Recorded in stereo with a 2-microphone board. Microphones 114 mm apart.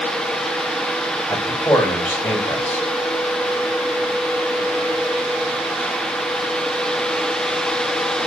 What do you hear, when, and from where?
1.3 s a man speaking: 10° left (ahead or behind), 3 m